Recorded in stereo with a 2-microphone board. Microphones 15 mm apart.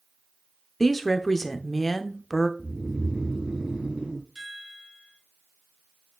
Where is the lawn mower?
I don't hear a lawn mower.